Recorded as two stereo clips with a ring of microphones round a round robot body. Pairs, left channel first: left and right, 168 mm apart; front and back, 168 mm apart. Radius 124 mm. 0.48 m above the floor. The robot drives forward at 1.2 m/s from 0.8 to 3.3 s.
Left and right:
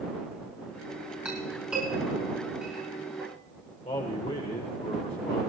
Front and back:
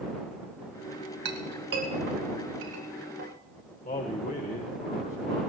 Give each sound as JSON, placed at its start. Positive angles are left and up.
{"t": 1.2, "sound": "a clink", "azimuth_deg": -175, "distance_m": 2.5}
{"t": 3.9, "sound": "a man speaking", "azimuth_deg": 35, "distance_m": 1.8}